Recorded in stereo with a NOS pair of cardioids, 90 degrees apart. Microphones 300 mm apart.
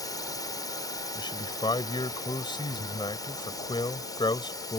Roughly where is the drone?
Ahead.